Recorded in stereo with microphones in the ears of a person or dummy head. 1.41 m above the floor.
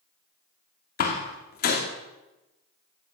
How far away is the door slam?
About 2.5 m.